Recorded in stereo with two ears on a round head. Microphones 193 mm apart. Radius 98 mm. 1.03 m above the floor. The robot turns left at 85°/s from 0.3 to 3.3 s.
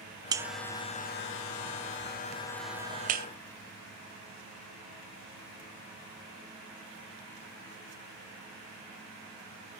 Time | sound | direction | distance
0.3 | a buzzer | 20° right (ahead or behind) | 0.5 m